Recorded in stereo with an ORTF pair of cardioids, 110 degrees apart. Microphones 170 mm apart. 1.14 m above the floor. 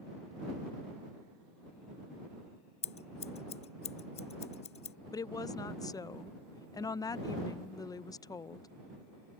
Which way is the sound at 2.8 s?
40° left.